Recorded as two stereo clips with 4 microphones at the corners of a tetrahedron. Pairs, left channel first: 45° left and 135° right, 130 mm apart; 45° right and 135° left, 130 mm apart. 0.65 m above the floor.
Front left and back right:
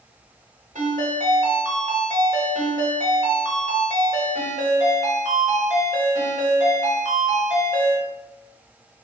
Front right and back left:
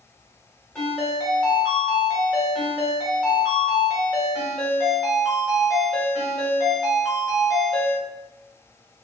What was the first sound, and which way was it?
A ringtone, 130° right.